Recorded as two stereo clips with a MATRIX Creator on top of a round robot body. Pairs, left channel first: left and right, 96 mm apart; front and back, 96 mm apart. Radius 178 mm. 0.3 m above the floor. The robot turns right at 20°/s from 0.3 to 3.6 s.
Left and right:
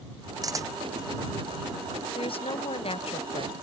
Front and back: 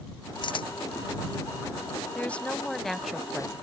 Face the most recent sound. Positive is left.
turn(degrees=100)